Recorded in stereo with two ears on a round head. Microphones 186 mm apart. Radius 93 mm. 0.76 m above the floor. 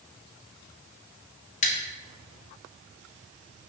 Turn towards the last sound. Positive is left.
turn(degrees=35)  # may be behind; listen again after turning